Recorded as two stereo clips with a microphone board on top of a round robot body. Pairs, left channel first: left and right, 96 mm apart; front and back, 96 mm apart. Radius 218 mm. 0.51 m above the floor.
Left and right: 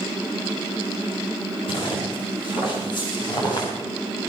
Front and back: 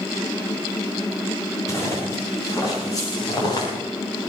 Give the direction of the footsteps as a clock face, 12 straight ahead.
10 o'clock.